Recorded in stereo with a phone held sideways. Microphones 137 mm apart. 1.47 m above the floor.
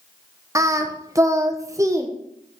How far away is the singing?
About 0.6 m.